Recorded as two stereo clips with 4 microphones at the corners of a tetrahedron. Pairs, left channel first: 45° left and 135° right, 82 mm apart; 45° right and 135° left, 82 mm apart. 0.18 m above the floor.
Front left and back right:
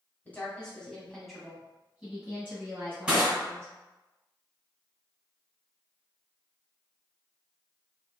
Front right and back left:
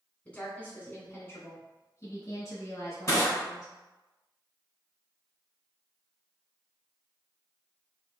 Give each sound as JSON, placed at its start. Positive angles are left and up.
{"t": 0.2, "sound": "a woman speaking", "azimuth_deg": 5, "distance_m": 1.5}
{"t": 3.1, "sound": "crushing", "azimuth_deg": -65, "distance_m": 1.6}